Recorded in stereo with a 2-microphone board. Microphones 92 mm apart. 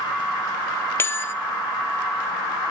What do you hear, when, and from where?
1.0 s a bell: 25° left (ahead or behind), 0.7 m